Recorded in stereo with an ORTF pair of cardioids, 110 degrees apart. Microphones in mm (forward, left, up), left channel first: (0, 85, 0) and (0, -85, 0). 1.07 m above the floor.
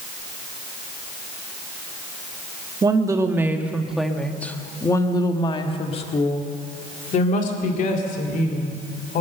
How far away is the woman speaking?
About 1.7 m.